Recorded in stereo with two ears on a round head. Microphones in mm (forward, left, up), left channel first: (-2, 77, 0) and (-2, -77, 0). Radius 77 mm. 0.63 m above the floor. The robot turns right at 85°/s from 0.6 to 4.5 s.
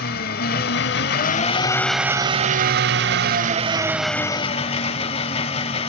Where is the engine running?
65° left, 0.7 m; by 5.9 s 40° left, 0.7 m.